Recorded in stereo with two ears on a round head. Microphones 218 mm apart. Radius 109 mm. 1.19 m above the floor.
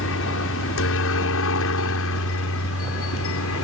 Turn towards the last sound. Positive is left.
turn(degrees=65)  # may be behind; listen again after turning